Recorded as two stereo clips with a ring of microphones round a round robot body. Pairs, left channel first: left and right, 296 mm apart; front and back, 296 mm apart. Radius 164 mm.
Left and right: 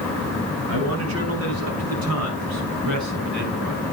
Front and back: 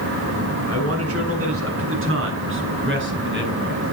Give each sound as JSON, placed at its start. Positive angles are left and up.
{"t": 0.7, "sound": "a man speaking", "azimuth_deg": -140, "distance_m": 7.0}